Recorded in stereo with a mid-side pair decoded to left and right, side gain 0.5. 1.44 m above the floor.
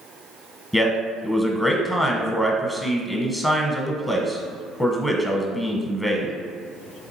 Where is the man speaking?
10° left, 0.9 m.